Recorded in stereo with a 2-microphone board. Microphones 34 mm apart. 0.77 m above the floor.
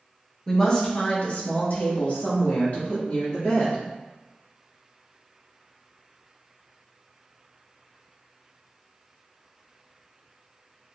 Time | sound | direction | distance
0.5 | a woman speaking | 10° left (ahead or behind) | 0.8 m